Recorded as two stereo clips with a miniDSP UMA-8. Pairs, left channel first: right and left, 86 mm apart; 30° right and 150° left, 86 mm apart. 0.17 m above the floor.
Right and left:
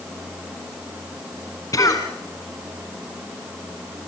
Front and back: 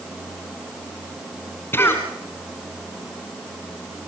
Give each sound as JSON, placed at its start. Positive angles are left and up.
{"t": 1.7, "sound": "a cough", "azimuth_deg": -80, "distance_m": 1.8}